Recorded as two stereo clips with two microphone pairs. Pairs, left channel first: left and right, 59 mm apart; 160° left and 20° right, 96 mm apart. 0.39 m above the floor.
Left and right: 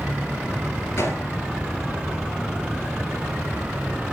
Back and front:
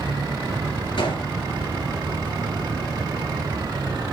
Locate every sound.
1.0 s a gunshot: 135° left, 3 m